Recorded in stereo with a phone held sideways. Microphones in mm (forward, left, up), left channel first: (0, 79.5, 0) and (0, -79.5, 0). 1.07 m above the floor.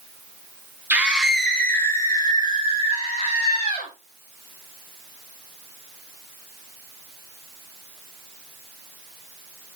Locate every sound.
0.9 s a scream: 10° right (ahead or behind), 1.5 m; by 3.9 s 50° left (ahead or behind), 2.5 m